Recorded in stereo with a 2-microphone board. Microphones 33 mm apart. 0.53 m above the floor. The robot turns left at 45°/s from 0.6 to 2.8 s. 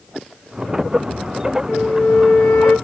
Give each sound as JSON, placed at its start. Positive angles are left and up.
{"t": 1.7, "sound": "a flute", "azimuth_deg": 50, "distance_m": 3.0}